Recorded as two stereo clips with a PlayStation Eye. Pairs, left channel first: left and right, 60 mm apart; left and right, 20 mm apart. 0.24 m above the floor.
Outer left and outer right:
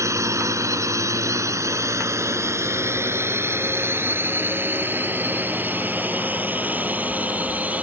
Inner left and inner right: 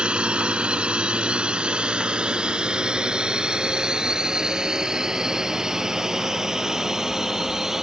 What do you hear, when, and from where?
0.0 s a drone: 60° right (ahead or behind); by 7.8 s 25° right (ahead or behind)